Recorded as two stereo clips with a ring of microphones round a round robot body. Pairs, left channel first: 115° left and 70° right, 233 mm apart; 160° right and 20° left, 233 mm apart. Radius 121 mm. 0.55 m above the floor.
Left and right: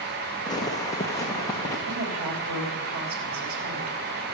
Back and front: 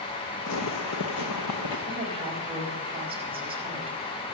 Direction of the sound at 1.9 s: 45° right.